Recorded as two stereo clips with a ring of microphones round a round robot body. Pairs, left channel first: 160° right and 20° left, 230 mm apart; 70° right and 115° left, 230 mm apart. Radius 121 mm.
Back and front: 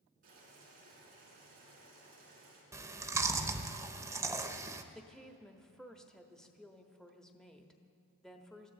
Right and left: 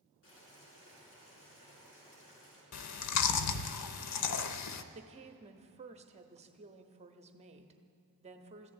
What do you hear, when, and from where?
0.2 s boiling: 30° right, 6 m
2.7 s chewing: 55° right, 0.7 m
5.0 s a woman speaking: 120° left, 1.0 m